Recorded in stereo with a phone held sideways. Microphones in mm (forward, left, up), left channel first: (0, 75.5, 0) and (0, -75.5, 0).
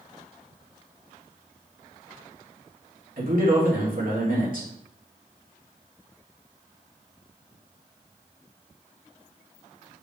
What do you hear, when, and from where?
3.2 s a man speaking: 65° right (ahead or behind), 2.5 m